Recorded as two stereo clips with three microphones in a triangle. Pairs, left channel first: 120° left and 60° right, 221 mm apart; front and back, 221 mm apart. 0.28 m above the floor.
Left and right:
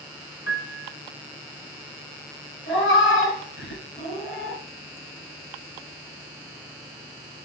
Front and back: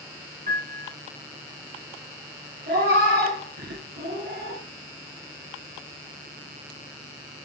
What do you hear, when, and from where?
0.5 s a piano: 135° left, 1.0 m
2.7 s a cat meowing: 145° left, 2 m